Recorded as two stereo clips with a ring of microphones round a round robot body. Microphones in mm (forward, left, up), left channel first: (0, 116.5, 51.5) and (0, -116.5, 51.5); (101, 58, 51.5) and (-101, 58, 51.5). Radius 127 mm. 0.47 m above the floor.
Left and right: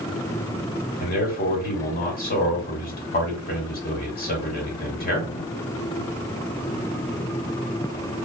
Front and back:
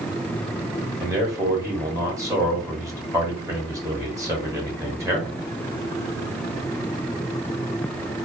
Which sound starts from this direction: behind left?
A man speaking, at 1.0 s.